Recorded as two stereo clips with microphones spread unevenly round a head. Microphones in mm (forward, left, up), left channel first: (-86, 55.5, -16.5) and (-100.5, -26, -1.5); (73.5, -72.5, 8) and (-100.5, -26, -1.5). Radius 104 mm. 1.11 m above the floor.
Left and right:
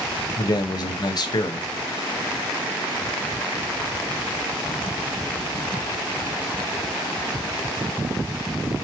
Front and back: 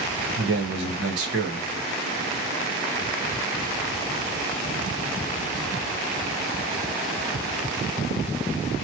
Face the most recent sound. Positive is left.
turn(degrees=120)